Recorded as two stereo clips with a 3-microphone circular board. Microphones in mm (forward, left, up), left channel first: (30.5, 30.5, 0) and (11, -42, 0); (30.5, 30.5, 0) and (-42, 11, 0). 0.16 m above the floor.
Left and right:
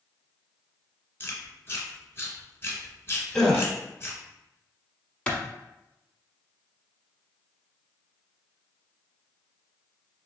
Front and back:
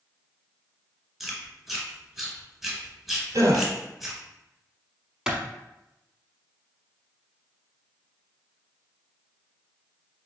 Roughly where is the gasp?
Behind.